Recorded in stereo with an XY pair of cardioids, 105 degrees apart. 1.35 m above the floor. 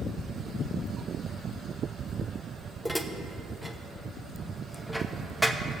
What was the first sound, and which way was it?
Dishes clattering, straight ahead.